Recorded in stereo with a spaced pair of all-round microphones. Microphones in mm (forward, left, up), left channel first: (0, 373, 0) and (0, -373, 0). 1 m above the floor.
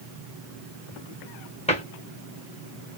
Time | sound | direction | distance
1.7 | a cupboard door | 10° left (ahead or behind) | 1.2 m